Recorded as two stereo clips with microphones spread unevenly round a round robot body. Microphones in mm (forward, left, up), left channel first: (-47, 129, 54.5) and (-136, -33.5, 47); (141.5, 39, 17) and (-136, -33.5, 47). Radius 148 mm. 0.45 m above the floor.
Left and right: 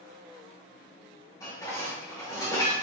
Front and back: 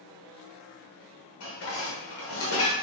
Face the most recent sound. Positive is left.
turn(degrees=-10)